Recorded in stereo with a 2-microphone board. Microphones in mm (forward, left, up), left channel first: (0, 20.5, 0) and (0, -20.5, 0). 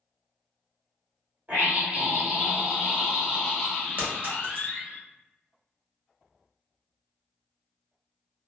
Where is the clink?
50° right (ahead or behind), 1.3 m.